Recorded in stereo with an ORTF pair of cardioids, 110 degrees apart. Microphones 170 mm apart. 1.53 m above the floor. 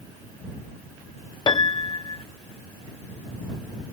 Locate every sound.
1.5 s a piano: 25° left